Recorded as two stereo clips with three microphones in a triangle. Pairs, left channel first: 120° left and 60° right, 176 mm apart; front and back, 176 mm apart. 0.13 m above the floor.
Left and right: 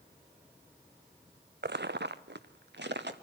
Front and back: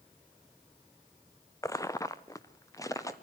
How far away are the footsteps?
About 0.6 m.